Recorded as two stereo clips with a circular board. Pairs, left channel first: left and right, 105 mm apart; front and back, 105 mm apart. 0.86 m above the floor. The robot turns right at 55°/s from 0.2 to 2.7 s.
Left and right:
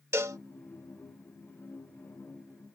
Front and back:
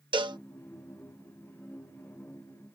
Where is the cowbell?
150° right; by 0.4 s 140° right.